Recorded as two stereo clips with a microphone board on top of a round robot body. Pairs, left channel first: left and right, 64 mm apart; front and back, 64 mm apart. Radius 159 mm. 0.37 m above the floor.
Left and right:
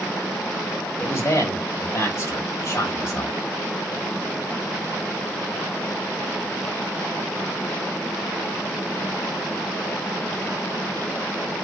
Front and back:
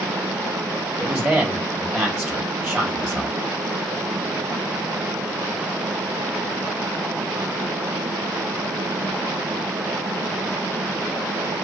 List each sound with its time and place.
1.0 s a man speaking: 110° left, 1.4 m